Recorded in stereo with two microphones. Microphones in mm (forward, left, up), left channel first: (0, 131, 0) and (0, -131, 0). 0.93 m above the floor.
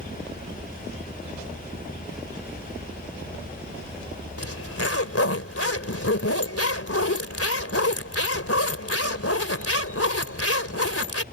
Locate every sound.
4.4 s a zipper: 65° left (ahead or behind)